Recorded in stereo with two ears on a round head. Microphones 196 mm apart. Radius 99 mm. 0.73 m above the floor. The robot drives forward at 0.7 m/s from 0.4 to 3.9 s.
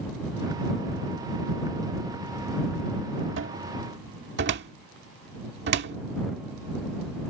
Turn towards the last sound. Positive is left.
turn(degrees=-55)  # may be behind; listen again after turning